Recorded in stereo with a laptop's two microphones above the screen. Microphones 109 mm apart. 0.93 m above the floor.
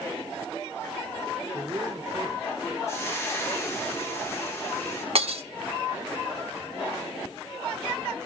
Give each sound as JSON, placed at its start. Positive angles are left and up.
{"t": 1.5, "sound": "a man speaking", "side_deg": -35, "distance_m": 3.5}
{"t": 2.9, "sound": "frying", "side_deg": 25, "distance_m": 8.5}
{"t": 5.2, "sound": "breaking glass", "side_deg": -65, "distance_m": 1.4}